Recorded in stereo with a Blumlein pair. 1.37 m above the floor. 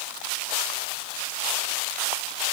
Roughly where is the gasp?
I don't hear a gasp.